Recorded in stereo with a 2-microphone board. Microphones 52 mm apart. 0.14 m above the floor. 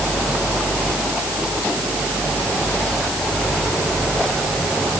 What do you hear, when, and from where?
Only background noise.